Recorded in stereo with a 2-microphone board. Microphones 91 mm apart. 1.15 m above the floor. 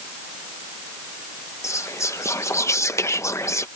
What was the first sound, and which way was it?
Whispering, 35° left (ahead or behind).